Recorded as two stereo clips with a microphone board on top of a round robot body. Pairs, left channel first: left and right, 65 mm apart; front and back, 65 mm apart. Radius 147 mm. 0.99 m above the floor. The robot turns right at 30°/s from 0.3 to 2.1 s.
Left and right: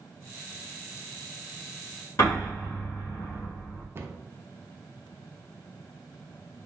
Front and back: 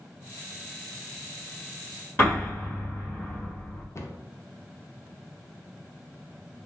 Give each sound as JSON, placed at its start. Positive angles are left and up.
{"t": 2.2, "sound": "an explosion", "azimuth_deg": 55, "distance_m": 1.4}
{"t": 4.0, "sound": "a cupboard door", "azimuth_deg": -40, "distance_m": 0.6}